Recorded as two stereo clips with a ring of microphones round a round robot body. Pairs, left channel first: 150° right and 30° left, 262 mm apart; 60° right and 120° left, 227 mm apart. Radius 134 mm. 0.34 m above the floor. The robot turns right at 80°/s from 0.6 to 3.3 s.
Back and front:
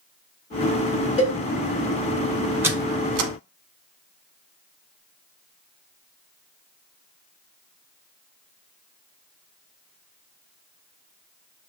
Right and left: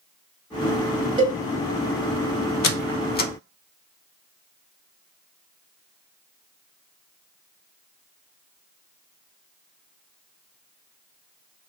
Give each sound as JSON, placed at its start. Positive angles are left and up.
{"t": 1.2, "sound": "a cowbell", "azimuth_deg": 165, "distance_m": 1.2}
{"t": 2.6, "sound": "a squeak", "azimuth_deg": -50, "distance_m": 0.5}